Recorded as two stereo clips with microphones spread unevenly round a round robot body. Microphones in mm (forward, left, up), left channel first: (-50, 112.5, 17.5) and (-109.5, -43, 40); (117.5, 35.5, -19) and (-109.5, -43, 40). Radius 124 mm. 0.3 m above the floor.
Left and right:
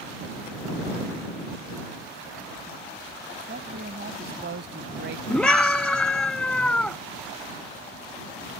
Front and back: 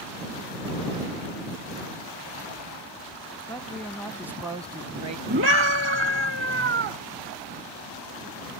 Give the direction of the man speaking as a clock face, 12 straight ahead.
2 o'clock.